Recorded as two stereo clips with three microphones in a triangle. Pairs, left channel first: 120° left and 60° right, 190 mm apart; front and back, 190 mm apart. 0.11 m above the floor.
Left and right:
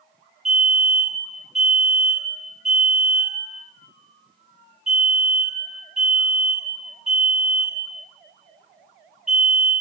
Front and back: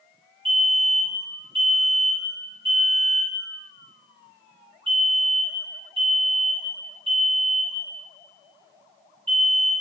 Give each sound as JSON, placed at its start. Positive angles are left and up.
{"t": 0.5, "sound": "a fire alarm", "azimuth_deg": -145, "distance_m": 2.5}